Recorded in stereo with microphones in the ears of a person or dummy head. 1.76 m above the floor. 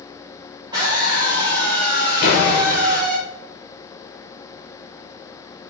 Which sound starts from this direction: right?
A scream, at 0.7 s.